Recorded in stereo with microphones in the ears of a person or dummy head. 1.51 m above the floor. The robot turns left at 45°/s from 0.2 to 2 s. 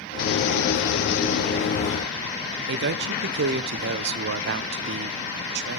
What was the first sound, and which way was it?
A man speaking, 65° right (ahead or behind).